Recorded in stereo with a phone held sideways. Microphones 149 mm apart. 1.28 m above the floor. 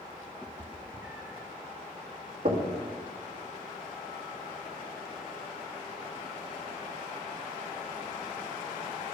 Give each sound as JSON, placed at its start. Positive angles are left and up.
{"t": 0.4, "sound": "a cat meowing", "side_deg": -10, "distance_m": 0.8}
{"t": 2.5, "sound": "knocking", "side_deg": -65, "distance_m": 1.7}